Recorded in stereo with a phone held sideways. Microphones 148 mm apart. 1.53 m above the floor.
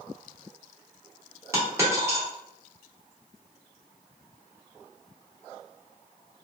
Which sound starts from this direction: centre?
A dropped coin, at 1.5 s.